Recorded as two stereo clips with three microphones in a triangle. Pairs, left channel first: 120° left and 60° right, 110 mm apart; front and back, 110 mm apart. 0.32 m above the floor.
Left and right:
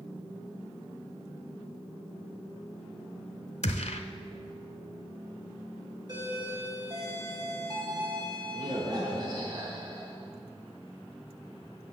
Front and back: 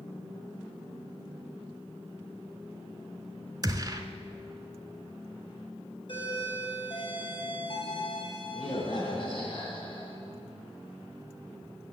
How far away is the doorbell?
About 2.5 m.